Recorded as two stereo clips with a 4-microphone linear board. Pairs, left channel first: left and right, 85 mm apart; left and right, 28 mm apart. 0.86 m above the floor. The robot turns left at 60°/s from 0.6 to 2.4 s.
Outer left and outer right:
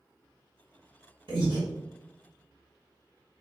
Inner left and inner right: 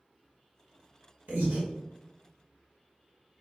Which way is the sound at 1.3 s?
80° right.